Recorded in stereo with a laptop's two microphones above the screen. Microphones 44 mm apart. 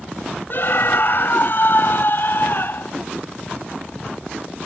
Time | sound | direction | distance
0.5 | a scream | 50° left (ahead or behind) | ?